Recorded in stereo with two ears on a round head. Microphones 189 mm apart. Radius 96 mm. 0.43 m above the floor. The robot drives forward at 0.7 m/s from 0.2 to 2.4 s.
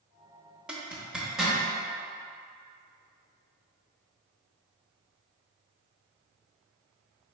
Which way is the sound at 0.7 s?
5° right (ahead or behind).